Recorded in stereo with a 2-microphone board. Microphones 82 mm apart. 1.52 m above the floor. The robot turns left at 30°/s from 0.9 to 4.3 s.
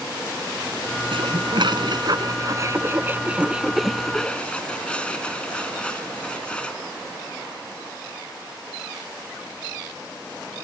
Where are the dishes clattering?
80° right; by 6.8 s 15° left (ahead or behind).